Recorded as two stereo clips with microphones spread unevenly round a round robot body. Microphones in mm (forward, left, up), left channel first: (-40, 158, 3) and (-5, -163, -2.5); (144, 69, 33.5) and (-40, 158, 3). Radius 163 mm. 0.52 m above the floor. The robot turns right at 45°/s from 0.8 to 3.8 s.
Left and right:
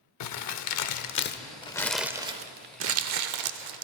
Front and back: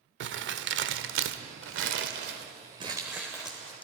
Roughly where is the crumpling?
Behind left.